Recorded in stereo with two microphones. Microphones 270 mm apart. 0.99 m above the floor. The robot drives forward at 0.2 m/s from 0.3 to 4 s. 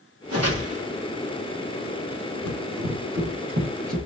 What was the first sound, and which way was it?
A whoosh, 60° right (ahead or behind).